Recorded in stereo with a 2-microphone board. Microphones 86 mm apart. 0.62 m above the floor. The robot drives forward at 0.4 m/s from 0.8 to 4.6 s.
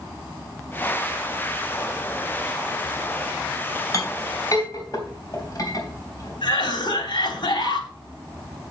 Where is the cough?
65° left (ahead or behind), 3.5 m.